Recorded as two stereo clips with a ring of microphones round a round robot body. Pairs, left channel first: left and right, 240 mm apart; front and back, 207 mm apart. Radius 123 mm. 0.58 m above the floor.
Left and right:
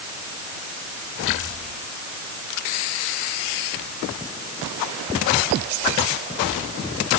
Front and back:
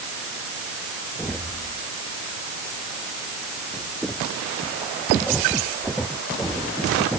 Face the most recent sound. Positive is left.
No sound to turn to.